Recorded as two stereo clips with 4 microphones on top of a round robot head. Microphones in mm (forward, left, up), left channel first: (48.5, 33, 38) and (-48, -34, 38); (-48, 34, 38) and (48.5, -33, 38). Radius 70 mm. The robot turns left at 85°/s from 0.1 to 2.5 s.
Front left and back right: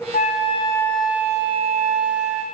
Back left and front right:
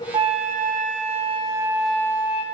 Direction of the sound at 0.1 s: 20° left.